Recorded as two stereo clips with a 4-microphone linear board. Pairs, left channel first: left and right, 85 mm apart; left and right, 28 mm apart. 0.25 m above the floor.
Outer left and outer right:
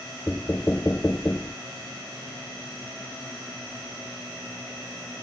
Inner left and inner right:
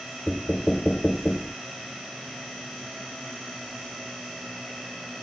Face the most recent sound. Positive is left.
turn(degrees=25)  # may be behind; listen again after turning